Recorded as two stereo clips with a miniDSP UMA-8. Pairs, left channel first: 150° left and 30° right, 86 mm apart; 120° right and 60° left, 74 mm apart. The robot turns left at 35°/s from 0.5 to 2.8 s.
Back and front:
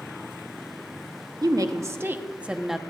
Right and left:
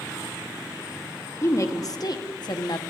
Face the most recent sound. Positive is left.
turn(degrees=-120)